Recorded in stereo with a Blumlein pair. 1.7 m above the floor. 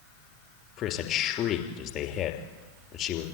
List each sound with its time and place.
0.8 s a man speaking: 35° left, 3 m